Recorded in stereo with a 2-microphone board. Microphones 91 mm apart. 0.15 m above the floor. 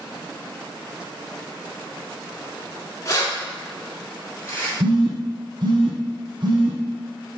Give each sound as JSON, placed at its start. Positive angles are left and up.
{"t": 3.0, "sound": "keys jangling", "side_deg": 35, "distance_m": 1.1}
{"t": 4.8, "sound": "a phone buzzing", "side_deg": -55, "distance_m": 1.5}